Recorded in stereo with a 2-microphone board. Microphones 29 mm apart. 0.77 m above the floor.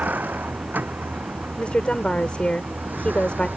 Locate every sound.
0.0 s a vehicle: 65° right (ahead or behind); by 3.6 s 70° right (ahead or behind)
1.6 s a woman speaking: 35° left (ahead or behind)